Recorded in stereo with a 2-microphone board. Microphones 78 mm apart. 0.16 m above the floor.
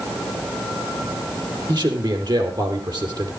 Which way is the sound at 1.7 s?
65° right (ahead or behind).